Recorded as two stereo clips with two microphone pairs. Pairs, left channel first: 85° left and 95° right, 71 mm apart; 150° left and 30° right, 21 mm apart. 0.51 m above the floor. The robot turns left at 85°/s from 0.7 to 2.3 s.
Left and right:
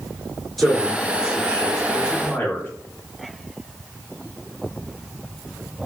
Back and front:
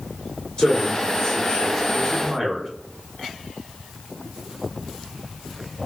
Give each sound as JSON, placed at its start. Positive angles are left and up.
{"t": 0.6, "sound": "a man speaking", "azimuth_deg": 170, "distance_m": 1.8}